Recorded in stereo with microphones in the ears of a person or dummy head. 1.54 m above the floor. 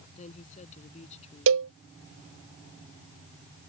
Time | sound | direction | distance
0.1 | a woman speaking | 40° left (ahead or behind) | ?
1.5 | a cowbell | 65° right (ahead or behind) | ?